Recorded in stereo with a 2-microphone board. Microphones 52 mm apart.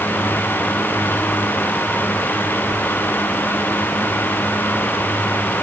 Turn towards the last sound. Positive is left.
No sound to turn to.